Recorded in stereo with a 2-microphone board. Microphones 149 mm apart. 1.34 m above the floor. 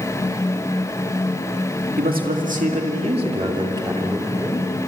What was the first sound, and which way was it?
A man speaking, 75° right (ahead or behind).